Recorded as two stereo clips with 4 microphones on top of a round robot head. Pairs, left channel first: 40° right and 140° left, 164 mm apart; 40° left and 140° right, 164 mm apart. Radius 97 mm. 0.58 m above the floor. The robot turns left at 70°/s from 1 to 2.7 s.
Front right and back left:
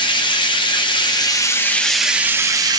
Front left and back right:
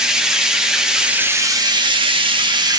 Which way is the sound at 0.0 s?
60° right.